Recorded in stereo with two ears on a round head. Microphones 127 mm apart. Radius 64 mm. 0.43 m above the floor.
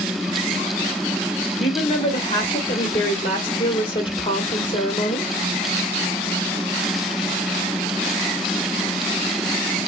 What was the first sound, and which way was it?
A woman speaking, 35° left (ahead or behind).